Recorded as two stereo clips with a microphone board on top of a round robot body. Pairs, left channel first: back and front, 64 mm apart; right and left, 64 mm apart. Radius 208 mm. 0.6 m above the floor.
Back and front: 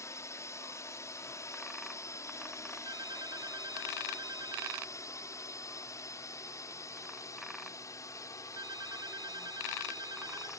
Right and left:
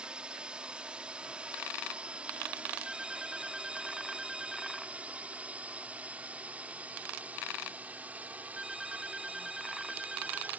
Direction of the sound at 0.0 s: 160° left.